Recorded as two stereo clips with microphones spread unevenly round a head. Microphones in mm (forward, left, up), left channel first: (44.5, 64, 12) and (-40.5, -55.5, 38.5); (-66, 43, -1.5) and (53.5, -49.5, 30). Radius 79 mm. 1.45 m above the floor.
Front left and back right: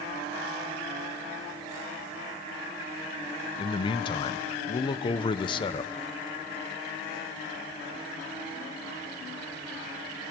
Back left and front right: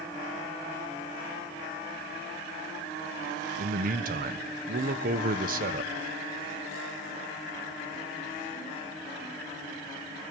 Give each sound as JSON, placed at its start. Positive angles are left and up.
{"t": 3.6, "sound": "a man speaking", "azimuth_deg": 0, "distance_m": 1.0}